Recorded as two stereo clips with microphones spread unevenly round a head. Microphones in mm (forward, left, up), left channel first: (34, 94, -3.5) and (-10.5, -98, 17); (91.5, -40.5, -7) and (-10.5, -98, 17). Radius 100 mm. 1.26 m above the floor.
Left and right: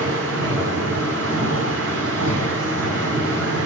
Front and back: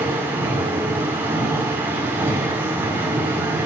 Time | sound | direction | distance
0.0 | a machine running | 80° right | 6.5 m